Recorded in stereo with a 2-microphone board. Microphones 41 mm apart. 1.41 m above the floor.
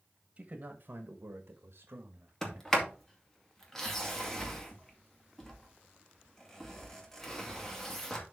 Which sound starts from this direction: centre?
A sliding door, at 2.4 s.